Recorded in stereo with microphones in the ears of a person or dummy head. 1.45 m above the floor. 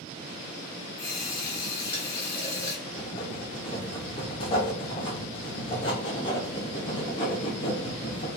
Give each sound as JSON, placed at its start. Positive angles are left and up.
{"t": 1.0, "sound": "a running tap", "side_deg": 20, "distance_m": 0.8}
{"t": 2.9, "sound": "writing", "side_deg": 25, "distance_m": 0.6}